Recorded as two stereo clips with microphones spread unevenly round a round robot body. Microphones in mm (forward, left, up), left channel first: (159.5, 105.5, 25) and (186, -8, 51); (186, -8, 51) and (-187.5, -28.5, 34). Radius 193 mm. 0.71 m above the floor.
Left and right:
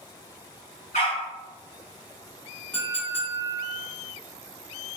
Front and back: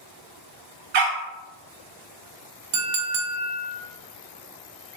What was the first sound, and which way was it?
A dog barking, 160° left.